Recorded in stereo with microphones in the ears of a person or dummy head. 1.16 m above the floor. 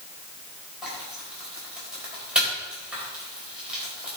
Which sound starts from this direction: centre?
Frying, at 0.8 s.